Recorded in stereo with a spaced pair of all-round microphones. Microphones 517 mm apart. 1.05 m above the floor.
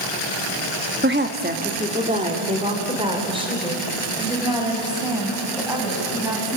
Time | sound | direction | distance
1.0 | a woman speaking | 20° right (ahead or behind) | 1.5 m